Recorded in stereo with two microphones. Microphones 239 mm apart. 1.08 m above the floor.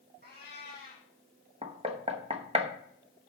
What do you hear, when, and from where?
0.2 s a cat meowing: 40° right (ahead or behind), 5 m
1.6 s knocking: 25° right (ahead or behind), 0.9 m